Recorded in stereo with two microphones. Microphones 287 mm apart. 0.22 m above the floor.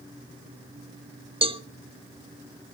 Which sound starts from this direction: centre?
A cowbell, at 1.4 s.